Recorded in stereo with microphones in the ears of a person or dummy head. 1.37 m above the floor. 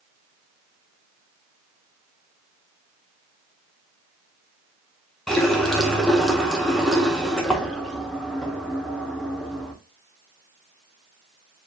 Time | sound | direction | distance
5.3 | a running tap | 5° left (ahead or behind) | 0.5 m